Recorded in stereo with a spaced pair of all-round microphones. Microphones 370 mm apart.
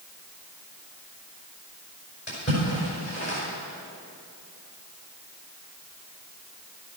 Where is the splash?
35° left (ahead or behind), 5 m.